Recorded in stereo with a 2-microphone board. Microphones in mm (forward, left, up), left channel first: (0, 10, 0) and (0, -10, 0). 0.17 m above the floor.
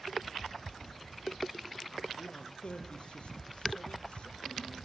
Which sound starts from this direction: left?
A man speaking, at 2.2 s.